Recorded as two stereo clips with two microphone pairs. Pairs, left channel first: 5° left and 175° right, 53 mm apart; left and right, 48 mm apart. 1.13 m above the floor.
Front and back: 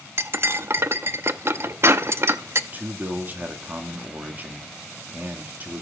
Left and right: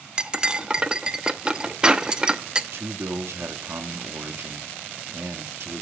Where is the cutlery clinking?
155° right, 0.7 m.